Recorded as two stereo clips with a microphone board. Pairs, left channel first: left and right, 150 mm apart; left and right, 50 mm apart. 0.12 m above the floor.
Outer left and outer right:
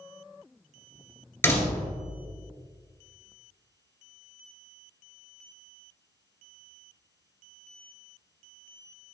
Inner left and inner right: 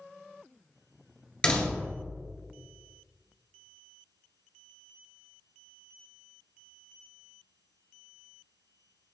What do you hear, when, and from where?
1.4 s a door slam: 15° left (ahead or behind), 1.7 m